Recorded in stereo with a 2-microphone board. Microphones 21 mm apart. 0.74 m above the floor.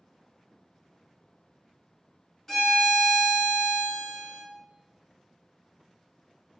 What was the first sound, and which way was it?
A violin, 25° left (ahead or behind).